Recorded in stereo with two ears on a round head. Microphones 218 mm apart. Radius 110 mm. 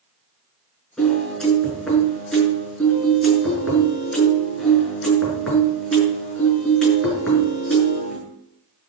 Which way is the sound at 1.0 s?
Centre (ahead or behind).